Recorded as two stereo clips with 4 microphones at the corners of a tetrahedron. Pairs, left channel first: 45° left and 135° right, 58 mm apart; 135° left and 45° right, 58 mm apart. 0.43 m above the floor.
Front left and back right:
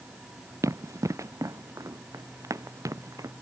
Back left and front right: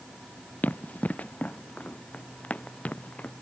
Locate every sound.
0.6 s running footsteps: 165° right; by 3.3 s 160° right